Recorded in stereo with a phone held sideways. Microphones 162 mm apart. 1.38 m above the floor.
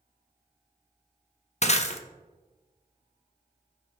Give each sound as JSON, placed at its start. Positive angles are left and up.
{"t": 1.6, "sound": "breaking glass", "side_deg": 45, "distance_m": 0.7}